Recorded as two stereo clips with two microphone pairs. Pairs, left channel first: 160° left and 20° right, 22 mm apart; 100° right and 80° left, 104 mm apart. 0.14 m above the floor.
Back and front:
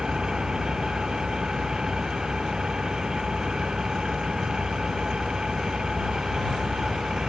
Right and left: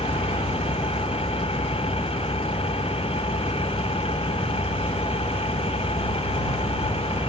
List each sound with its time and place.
0.0 s an engine running: 75° right